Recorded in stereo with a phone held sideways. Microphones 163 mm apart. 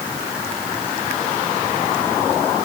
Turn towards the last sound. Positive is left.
No sound to turn to.